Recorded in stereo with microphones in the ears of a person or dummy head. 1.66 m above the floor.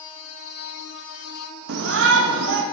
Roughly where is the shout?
Right.